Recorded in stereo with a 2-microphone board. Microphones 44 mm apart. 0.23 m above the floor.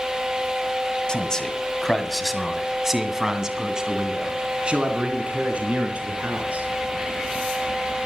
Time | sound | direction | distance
1.1 | a man speaking | 20° left (ahead or behind) | 1.7 m